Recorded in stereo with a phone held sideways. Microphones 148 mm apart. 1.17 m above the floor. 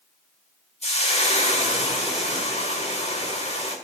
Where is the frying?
45° left (ahead or behind), 1.9 m.